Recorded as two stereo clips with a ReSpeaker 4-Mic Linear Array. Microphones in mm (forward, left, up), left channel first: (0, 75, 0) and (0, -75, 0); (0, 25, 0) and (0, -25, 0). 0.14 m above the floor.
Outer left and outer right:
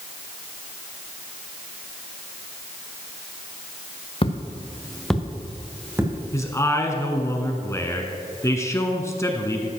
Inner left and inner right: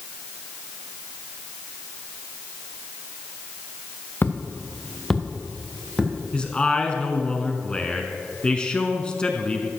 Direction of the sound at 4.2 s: 40° left (ahead or behind).